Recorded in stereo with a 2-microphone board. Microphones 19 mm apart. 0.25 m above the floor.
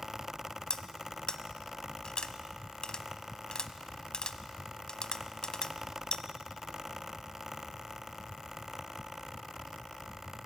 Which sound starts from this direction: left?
Cutlery clinking, at 0.7 s.